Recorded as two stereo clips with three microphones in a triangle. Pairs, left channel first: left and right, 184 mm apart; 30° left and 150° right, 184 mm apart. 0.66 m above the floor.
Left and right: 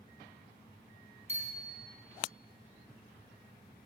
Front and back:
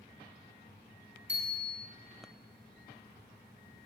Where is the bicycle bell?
140° right, 4.5 m.